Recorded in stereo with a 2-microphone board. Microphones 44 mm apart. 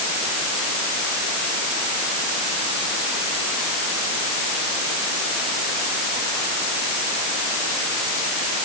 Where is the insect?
I don't hear an insect.